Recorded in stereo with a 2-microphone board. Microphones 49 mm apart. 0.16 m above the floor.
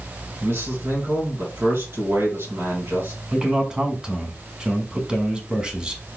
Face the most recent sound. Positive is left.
turn(degrees=-15)  # may be behind; listen again after turning